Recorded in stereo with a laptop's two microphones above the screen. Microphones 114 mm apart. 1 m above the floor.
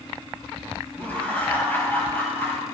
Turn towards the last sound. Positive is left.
turn(degrees=20)  # may be behind; listen again after turning